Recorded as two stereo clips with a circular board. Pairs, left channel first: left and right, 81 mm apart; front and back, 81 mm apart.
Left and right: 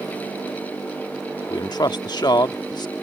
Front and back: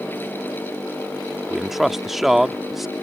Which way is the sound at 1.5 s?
95° left.